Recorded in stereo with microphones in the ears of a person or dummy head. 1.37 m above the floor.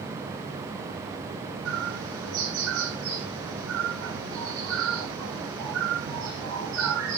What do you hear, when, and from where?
1.6 s a bird: 75° right (ahead or behind), 8 m